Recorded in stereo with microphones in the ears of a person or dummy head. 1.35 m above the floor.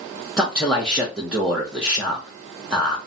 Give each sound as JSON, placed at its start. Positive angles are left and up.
{"t": 0.4, "sound": "a man speaking", "side_deg": 0, "distance_m": 0.7}